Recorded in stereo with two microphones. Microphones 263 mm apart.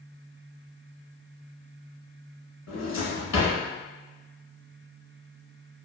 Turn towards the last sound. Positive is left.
turn(degrees=80)